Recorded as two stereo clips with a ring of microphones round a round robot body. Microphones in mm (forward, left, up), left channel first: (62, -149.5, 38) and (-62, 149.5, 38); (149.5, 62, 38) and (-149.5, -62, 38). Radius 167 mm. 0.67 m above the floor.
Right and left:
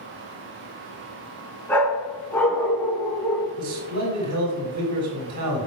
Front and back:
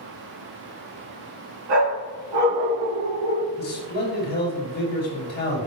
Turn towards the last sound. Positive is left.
turn(degrees=80)